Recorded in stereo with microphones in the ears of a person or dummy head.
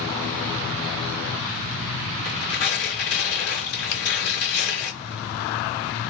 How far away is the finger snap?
About 1.2 m.